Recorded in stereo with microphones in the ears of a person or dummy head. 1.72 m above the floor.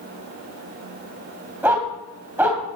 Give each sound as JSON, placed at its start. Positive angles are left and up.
{"t": 1.6, "sound": "a dog barking", "side_deg": -10, "distance_m": 2.5}